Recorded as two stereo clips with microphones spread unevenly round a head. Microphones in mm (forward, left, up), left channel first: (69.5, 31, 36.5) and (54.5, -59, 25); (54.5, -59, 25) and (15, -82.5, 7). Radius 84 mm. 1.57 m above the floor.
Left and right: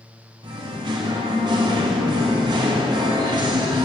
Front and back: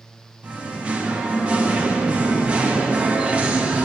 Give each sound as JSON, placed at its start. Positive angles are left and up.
{"t": 0.4, "sound": "singing", "azimuth_deg": -70, "distance_m": 1.1}